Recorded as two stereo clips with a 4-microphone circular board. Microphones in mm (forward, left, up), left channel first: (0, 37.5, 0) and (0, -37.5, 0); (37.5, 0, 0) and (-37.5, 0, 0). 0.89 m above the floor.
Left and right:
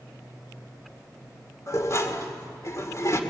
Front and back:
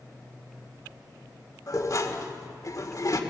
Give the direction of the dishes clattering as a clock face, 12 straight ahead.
11 o'clock.